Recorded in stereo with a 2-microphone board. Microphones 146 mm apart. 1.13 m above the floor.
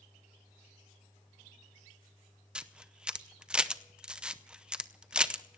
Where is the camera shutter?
5° right (ahead or behind), 0.6 m.